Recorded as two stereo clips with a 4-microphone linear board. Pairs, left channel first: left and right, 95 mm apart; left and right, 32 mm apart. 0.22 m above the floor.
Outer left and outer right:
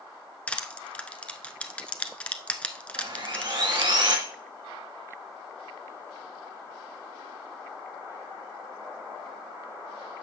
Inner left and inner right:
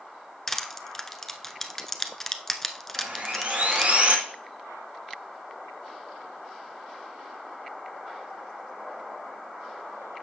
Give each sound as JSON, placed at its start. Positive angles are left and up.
{"t": 0.5, "sound": "crushing", "side_deg": 15, "distance_m": 0.7}
{"t": 3.0, "sound": "sawing", "side_deg": -55, "distance_m": 2.5}